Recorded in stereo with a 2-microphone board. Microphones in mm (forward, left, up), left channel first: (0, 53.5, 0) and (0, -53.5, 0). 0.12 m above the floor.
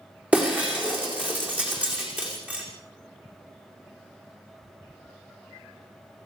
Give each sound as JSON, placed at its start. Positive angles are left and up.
{"t": 0.3, "sound": "breaking glass", "side_deg": -15, "distance_m": 5.5}